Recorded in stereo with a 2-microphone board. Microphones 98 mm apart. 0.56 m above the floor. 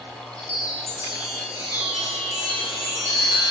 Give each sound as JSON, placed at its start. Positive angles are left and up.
{"t": 0.4, "sound": "a chime", "side_deg": -30, "distance_m": 2.5}